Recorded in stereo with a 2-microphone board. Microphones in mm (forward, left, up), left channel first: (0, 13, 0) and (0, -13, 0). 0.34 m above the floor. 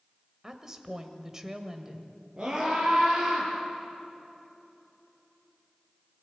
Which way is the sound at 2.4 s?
25° right (ahead or behind).